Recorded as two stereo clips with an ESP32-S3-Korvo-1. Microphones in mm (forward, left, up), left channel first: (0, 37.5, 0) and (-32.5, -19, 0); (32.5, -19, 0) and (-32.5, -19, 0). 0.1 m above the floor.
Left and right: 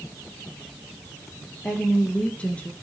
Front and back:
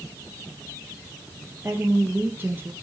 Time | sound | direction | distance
1.6 | a woman speaking | 125° left | 2.5 m